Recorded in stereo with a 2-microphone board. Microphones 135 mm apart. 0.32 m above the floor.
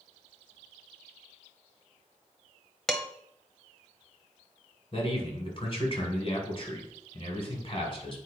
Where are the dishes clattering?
Centre (ahead or behind), 1.0 m.